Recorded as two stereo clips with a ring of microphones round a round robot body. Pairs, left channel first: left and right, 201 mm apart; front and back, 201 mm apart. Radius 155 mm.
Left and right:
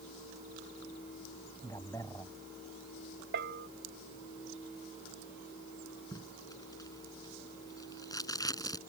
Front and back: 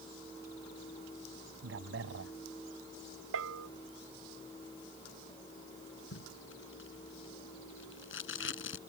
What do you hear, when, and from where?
1.6 s a man speaking: 170° left
3.3 s a bell: 145° right
6.1 s tape being pulled: 15° left